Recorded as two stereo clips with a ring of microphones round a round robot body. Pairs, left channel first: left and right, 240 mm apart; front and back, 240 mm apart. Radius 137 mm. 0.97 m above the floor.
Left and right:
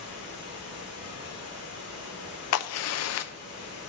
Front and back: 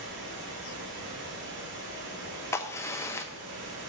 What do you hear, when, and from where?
0.0 s running water: 130° left, 1.6 m
2.5 s a crack: 80° left, 0.5 m